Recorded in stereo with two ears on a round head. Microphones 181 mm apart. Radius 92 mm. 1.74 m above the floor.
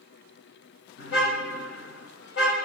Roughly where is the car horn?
Left.